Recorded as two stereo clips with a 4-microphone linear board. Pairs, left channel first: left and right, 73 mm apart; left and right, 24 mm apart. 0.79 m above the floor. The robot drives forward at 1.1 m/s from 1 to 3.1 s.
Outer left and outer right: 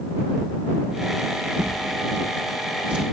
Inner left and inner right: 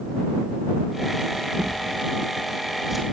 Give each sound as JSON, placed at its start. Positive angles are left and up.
{"t": 1.6, "sound": "a drawer", "side_deg": -20, "distance_m": 6.5}